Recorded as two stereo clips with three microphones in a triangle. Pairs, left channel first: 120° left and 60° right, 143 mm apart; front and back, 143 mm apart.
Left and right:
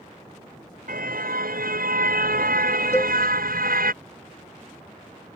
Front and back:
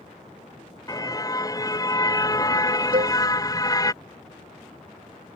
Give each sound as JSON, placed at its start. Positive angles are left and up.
{"t": 0.9, "sound": "a car horn", "azimuth_deg": -65}
{"t": 2.9, "sound": "a cowbell", "azimuth_deg": -170}